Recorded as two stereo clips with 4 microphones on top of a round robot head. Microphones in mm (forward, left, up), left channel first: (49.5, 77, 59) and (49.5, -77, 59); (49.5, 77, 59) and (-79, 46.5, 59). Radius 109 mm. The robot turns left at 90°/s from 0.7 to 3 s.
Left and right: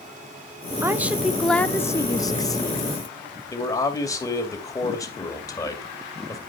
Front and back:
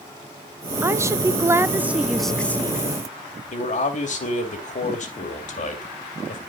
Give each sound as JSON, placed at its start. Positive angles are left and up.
{"t": 0.8, "sound": "a woman speaking", "azimuth_deg": -130, "distance_m": 0.8}
{"t": 3.5, "sound": "a man speaking", "azimuth_deg": 25, "distance_m": 2.5}